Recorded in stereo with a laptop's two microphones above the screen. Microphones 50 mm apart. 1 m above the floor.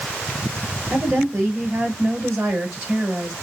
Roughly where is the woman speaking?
Right.